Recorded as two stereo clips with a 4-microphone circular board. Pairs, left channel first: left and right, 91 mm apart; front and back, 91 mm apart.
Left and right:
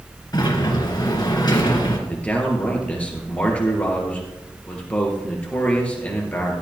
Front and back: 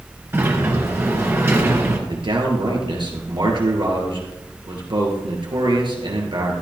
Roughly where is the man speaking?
Behind.